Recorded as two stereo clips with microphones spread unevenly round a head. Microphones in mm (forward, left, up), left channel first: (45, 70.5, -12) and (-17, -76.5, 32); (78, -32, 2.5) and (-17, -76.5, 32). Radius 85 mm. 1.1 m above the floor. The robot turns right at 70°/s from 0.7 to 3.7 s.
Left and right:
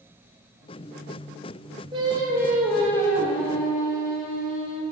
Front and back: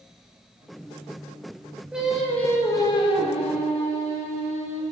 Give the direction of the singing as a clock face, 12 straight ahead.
3 o'clock.